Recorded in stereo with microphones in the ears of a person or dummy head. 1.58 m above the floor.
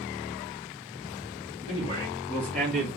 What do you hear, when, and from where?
1.7 s a man speaking: 30° left (ahead or behind), 1.4 m; by 2.9 s 5° right (ahead or behind), 1.0 m